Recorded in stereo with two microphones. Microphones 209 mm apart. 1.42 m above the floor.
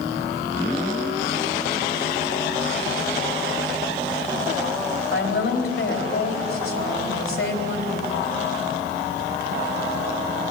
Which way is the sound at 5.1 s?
85° left.